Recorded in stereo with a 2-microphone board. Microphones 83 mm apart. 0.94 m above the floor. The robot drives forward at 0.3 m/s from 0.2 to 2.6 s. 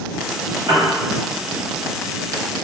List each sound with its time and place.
0.7 s a piano: 50° right (ahead or behind), 0.9 m